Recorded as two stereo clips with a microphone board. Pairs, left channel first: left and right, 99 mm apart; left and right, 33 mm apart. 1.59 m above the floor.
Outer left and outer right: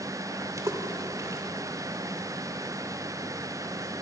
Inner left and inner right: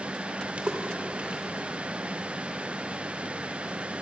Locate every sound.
0.6 s a splash: 35° right (ahead or behind), 2 m